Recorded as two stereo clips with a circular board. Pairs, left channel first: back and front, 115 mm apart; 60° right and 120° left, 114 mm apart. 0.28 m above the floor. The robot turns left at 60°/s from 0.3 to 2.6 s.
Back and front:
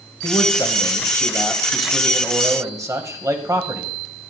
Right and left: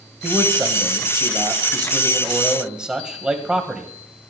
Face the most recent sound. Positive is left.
turn(degrees=40)